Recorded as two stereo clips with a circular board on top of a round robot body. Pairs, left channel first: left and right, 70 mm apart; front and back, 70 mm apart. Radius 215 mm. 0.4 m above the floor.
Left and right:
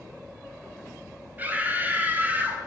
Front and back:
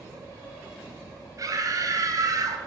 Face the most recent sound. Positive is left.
turn(degrees=-155)